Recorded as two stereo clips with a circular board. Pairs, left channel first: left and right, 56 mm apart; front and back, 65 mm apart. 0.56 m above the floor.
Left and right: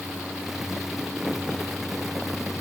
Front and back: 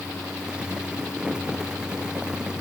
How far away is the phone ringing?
I don't hear a phone ringing.